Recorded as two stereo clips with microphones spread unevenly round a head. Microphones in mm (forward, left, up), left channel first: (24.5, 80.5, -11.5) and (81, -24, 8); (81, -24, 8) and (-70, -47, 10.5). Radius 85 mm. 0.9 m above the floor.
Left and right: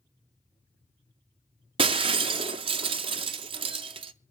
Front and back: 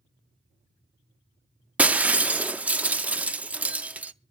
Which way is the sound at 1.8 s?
90° right.